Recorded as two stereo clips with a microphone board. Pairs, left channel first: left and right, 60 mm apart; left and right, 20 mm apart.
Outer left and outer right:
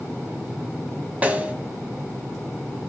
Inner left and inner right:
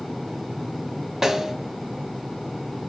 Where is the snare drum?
25° right (ahead or behind), 0.5 m.